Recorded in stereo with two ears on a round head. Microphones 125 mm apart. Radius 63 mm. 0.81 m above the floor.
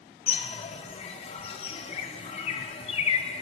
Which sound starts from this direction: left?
A bird, at 0.3 s.